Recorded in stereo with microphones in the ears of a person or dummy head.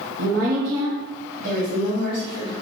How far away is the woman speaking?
About 1.0 m.